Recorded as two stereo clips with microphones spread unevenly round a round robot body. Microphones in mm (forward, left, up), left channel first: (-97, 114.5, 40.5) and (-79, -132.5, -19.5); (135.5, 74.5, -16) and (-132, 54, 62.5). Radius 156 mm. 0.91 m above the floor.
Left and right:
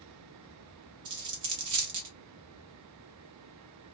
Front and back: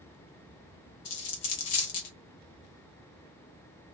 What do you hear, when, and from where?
1.1 s a dropped coin: 45° right, 0.6 m